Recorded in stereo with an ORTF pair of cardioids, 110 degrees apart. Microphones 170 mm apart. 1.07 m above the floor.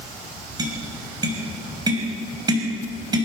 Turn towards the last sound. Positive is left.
turn(degrees=-25)